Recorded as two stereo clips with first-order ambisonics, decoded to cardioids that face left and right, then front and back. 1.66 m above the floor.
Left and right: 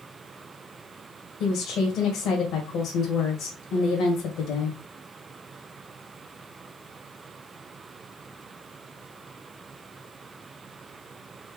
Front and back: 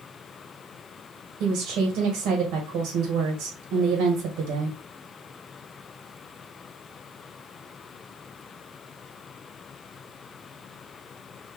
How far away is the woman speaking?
About 1.6 m.